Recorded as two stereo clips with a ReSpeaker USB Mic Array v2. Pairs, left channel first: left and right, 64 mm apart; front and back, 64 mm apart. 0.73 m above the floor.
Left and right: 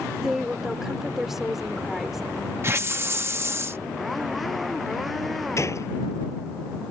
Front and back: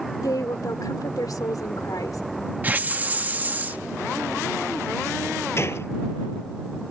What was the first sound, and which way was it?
A woman speaking, 5° right.